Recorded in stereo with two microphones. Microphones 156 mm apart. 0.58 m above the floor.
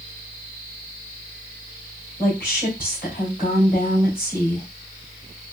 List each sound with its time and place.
2.2 s a woman speaking: 60° left (ahead or behind), 2.5 m